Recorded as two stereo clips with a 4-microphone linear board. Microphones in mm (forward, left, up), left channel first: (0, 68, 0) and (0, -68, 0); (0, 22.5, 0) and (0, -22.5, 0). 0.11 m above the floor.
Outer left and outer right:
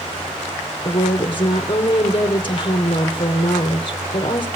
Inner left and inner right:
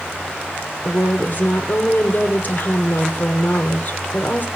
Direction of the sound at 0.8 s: 40° left (ahead or behind).